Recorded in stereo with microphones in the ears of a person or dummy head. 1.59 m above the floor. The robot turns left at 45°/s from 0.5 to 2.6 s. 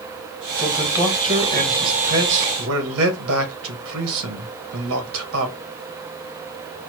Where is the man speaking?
5° left, 1.7 m; by 5.5 s 85° right, 1.7 m.